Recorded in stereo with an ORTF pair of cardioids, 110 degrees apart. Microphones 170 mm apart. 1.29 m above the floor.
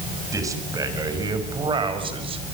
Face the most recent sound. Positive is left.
turn(degrees=-35)